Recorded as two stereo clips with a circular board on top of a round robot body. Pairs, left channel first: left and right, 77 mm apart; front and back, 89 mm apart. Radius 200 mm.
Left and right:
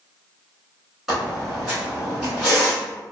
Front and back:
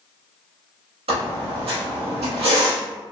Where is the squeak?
175° right, 0.7 m.